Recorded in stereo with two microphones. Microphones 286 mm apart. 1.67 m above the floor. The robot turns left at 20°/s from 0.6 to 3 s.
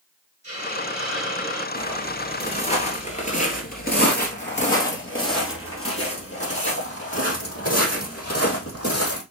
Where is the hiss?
40° left (ahead or behind), 4 m; by 1.6 s 60° left (ahead or behind), 4 m.